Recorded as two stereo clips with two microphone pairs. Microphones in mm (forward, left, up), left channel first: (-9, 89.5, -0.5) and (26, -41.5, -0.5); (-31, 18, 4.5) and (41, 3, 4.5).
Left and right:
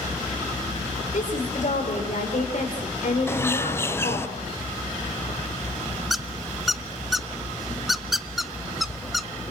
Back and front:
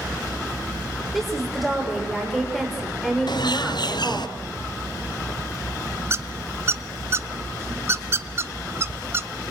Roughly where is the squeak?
Ahead.